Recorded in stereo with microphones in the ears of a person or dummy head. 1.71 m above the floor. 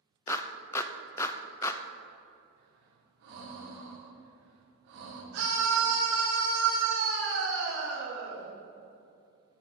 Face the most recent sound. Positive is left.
turn(degrees=-65)  # may be behind; listen again after turning